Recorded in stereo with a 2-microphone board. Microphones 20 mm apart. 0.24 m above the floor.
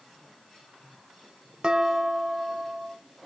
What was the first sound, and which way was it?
Dishes clattering, 50° right (ahead or behind).